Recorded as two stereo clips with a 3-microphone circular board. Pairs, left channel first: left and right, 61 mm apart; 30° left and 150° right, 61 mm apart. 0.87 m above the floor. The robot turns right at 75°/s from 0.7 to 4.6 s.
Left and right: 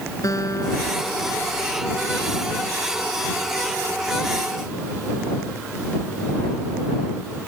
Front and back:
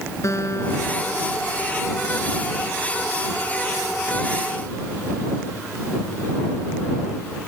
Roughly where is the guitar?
Ahead left.